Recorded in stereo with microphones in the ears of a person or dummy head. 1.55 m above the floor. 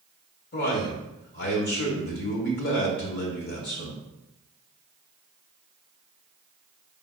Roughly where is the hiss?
No hiss in this recording.